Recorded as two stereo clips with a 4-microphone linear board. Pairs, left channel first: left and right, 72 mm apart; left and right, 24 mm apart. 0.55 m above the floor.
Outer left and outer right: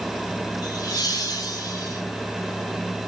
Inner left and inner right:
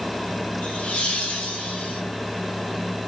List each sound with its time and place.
0.6 s laughter: 60° left (ahead or behind), 2.5 m; by 2.0 s 55° left (ahead or behind), 3.5 m